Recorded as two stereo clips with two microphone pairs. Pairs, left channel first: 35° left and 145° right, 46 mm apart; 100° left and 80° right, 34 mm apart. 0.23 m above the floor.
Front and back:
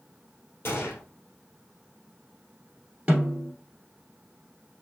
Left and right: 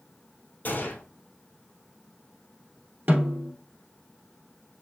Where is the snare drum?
85° right, 1.7 m.